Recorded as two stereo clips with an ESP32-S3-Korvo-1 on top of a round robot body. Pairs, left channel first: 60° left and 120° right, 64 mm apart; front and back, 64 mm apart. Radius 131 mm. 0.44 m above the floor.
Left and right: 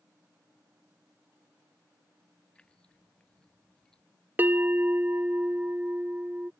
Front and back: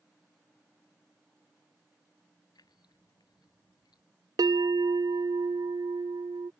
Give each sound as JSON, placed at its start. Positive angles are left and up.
{"t": 2.5, "sound": "keys jangling", "azimuth_deg": -15}
{"t": 4.4, "sound": "a bell", "azimuth_deg": 180}